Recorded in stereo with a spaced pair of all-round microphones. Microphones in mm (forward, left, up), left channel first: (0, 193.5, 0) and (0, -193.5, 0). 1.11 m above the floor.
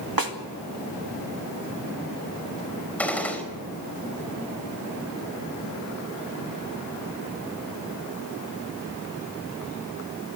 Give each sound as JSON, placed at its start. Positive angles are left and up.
{"t": 0.2, "sound": "a snare drum", "side_deg": -65, "distance_m": 1.9}
{"t": 3.0, "sound": "a gunshot", "side_deg": 5, "distance_m": 4.0}